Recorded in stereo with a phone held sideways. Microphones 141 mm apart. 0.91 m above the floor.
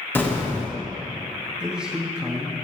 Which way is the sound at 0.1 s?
15° left (ahead or behind).